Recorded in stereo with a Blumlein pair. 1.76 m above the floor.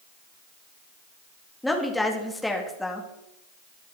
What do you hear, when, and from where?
1.6 s a woman speaking: 5° left, 3.5 m